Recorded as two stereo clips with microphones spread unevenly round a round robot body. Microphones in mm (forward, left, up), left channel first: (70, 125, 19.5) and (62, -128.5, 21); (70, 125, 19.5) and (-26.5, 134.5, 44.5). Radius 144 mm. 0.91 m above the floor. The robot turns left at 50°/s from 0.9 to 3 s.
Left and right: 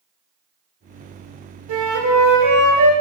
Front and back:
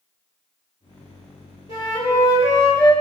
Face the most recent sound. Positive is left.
turn(degrees=-125)